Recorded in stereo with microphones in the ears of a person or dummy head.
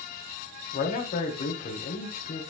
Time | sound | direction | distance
0.7 | a man speaking | 40° left (ahead or behind) | 1.8 m